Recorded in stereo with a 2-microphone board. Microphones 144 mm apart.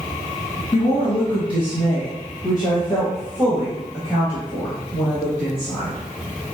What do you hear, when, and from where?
0.7 s a woman speaking: 40° left (ahead or behind), 1.8 m; by 6.0 s 20° left (ahead or behind), 4 m